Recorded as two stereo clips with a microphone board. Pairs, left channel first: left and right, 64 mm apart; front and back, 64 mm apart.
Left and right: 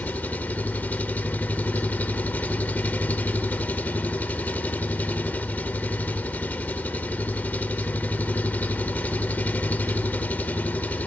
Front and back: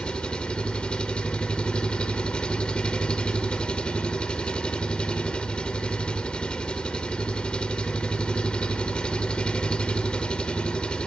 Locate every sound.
0.0 s an engine running: 60° left, 1.0 m